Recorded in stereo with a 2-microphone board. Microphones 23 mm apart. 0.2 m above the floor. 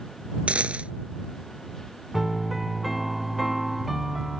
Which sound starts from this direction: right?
A dropped coin, at 0.5 s.